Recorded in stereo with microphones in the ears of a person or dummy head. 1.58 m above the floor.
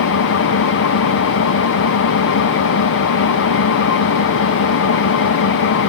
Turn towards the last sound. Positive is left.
turn(degrees=60)  # may be behind; listen again after turning